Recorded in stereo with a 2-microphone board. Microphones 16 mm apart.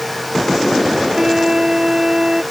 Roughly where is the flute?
Right.